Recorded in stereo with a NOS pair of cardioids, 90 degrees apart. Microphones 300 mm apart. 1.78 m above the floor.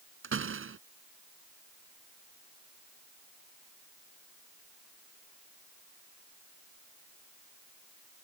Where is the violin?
No violin in this recording.